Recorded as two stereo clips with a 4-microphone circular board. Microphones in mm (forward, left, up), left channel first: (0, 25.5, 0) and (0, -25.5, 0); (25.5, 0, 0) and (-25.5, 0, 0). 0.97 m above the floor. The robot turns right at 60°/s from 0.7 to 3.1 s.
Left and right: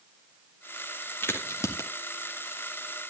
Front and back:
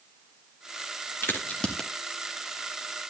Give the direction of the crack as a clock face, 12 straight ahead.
10 o'clock.